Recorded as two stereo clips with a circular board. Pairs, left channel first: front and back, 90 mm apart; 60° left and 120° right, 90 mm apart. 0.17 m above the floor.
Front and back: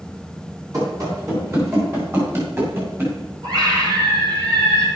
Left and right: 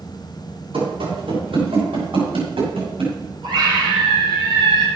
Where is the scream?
140° right, 6 m.